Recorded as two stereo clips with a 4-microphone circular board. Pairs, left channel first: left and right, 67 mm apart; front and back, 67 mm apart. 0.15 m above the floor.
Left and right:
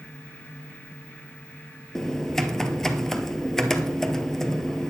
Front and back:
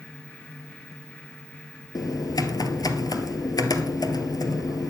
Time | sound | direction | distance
1.9 | typing on a keyboard | 5° left | 1.3 m